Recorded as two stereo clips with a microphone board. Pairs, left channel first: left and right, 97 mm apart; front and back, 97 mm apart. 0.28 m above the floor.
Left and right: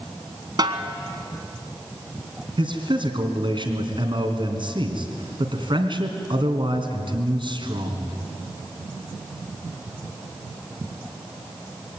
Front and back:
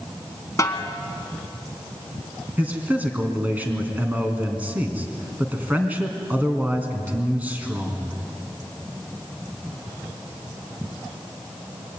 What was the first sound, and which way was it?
A snare drum, 55° right.